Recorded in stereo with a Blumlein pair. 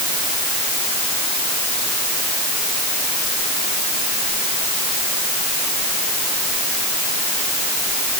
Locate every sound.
Only background noise.